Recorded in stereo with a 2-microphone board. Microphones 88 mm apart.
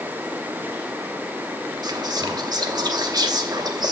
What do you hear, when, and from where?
1.8 s whispering: 50° right (ahead or behind), 0.8 m